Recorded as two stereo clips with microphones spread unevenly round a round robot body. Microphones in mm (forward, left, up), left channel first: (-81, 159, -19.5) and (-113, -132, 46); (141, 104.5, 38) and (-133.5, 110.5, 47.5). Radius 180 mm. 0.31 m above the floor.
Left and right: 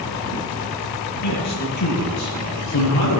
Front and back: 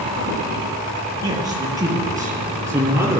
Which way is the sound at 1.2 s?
105° left.